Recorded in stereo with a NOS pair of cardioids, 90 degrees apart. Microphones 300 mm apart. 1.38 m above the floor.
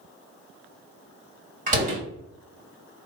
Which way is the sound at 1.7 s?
25° right.